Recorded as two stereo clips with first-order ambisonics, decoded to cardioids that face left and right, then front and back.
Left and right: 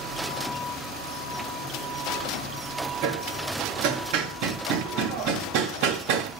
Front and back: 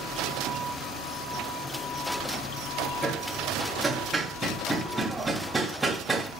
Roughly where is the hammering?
Right.